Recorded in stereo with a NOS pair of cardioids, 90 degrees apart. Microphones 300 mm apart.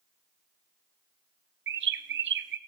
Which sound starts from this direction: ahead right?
A bird, at 1.7 s.